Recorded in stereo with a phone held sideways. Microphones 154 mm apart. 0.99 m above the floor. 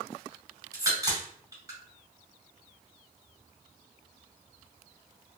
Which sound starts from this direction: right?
A crack, at 0.7 s.